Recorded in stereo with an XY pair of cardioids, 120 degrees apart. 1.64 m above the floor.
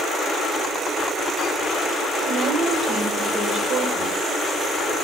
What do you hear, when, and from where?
2.3 s a woman speaking: 45° right, 7 m